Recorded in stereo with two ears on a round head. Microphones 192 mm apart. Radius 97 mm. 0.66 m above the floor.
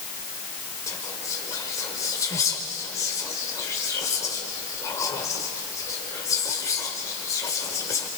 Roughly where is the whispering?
Centre.